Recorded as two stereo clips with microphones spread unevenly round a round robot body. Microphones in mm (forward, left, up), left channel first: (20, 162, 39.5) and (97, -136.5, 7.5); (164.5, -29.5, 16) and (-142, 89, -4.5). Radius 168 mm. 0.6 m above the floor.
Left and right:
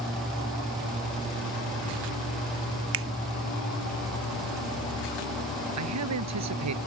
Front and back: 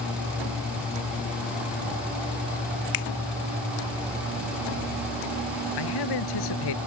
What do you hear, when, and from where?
2.9 s a finger snap: 40° right
5.8 s a man speaking: 45° right